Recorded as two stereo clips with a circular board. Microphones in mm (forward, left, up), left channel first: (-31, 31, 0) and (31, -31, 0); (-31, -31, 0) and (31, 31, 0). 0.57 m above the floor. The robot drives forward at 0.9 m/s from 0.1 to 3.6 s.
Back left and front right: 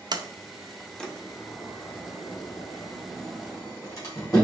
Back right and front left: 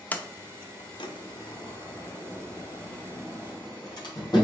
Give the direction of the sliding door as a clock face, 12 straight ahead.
2 o'clock.